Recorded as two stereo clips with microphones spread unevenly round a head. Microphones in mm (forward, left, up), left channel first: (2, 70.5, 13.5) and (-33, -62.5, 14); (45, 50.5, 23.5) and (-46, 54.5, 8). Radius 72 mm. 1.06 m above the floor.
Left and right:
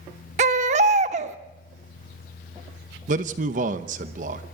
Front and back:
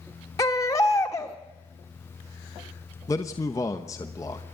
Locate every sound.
0.4 s a baby crying: 65° right, 1.0 m
3.1 s a man speaking: 70° right, 0.9 m